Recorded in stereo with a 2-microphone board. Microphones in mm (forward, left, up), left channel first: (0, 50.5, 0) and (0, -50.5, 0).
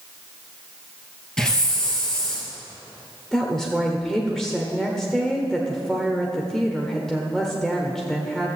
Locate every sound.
1.4 s a hiss: 5° left (ahead or behind), 2.5 m
3.3 s a woman speaking: 5° left (ahead or behind), 1.1 m